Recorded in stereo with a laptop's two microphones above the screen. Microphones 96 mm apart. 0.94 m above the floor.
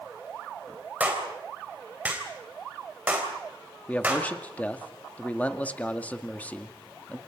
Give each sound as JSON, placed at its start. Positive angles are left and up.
{"t": 1.0, "sound": "a clap", "side_deg": -15, "distance_m": 3.5}
{"t": 3.9, "sound": "a man speaking", "side_deg": 15, "distance_m": 1.9}